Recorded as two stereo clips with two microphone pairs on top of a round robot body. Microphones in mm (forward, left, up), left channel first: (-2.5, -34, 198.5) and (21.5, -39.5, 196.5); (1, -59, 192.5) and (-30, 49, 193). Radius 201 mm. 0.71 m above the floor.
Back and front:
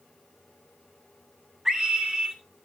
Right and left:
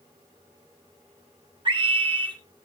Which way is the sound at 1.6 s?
65° left.